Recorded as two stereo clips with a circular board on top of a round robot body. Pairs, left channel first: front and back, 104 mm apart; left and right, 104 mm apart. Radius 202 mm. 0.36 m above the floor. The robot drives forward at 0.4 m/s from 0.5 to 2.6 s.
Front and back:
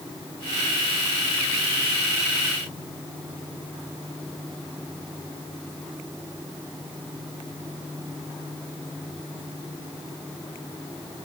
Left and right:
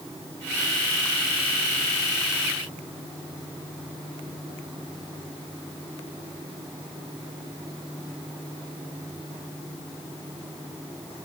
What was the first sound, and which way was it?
Only background noise.